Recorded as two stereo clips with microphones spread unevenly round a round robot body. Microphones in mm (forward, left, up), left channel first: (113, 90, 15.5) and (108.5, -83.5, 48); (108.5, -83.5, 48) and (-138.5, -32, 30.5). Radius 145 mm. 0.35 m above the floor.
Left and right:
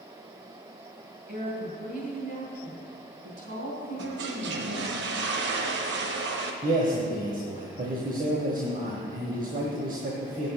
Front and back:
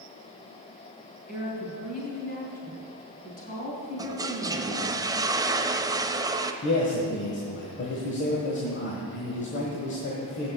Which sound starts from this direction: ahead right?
A man speaking, at 6.6 s.